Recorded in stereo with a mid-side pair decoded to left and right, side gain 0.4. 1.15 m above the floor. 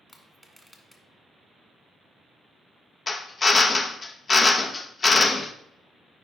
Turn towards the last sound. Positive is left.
turn(degrees=40)